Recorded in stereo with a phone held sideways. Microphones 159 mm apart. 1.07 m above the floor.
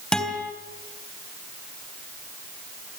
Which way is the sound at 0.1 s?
5° left (ahead or behind).